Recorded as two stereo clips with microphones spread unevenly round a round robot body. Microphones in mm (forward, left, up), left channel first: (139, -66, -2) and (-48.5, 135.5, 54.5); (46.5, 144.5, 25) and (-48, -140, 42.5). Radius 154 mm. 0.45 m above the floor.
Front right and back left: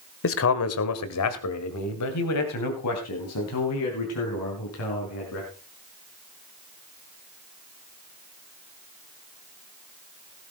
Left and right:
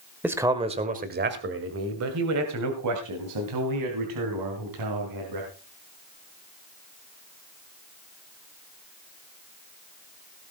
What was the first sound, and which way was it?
A man speaking, 20° right.